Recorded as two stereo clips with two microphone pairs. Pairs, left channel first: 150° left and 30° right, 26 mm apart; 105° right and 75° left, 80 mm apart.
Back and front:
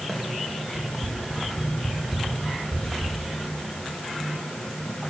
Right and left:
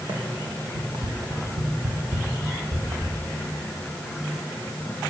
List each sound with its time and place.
0.1 s running footsteps: 55° left, 5.5 m; by 3.2 s 30° left, 5 m